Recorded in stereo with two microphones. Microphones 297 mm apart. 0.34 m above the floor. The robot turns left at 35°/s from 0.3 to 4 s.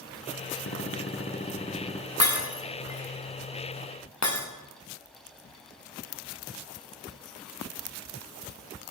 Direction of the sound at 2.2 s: 55° left (ahead or behind).